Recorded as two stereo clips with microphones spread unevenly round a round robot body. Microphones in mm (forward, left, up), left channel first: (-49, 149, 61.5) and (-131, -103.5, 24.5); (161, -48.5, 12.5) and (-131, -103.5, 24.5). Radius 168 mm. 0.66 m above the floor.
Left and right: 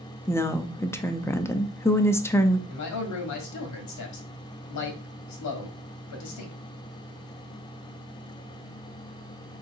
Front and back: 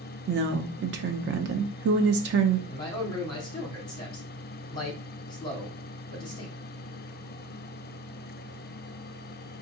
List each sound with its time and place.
0.3 s a woman speaking: 160° left, 0.6 m
2.7 s a man speaking: 85° left, 1.4 m